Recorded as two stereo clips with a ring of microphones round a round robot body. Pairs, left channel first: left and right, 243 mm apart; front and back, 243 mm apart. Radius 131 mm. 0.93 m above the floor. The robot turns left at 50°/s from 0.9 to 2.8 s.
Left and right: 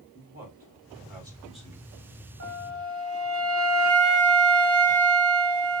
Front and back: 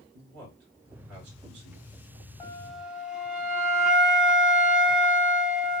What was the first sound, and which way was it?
A man speaking, 150° right.